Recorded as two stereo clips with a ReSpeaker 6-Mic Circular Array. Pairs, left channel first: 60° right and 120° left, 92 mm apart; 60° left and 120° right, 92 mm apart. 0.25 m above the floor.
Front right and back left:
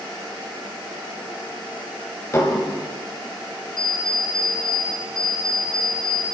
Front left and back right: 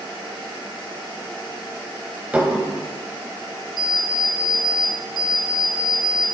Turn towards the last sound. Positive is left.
turn(degrees=-90)